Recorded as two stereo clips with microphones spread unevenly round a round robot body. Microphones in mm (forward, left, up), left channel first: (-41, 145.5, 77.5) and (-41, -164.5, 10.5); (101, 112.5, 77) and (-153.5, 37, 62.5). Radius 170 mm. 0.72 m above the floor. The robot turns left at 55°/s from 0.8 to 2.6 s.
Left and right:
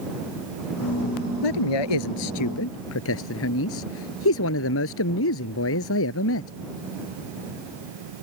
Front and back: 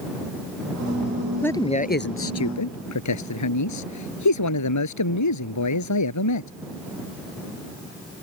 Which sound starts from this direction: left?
A man speaking, at 1.4 s.